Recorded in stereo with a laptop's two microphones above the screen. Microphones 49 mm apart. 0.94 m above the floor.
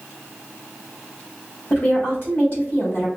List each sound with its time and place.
1.7 s a woman speaking: 45° left (ahead or behind), 1.3 m